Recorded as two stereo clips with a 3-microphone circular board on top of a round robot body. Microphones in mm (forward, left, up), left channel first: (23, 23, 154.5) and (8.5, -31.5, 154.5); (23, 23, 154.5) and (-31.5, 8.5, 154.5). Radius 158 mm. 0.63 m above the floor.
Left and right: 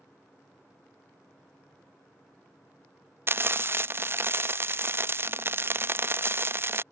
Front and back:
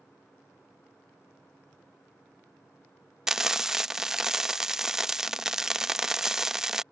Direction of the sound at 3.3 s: 85° right.